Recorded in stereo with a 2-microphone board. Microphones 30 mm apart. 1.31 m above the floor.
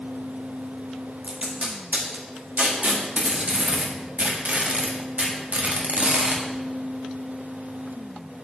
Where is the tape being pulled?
50° right (ahead or behind), 1.4 m.